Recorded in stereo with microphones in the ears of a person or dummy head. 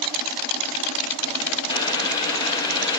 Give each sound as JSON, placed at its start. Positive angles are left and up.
{"t": 1.7, "sound": "boiling", "side_deg": 20, "distance_m": 0.6}